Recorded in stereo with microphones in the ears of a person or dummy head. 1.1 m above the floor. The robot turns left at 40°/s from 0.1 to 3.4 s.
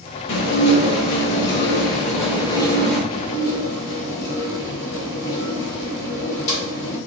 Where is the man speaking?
No man speaking in this recording.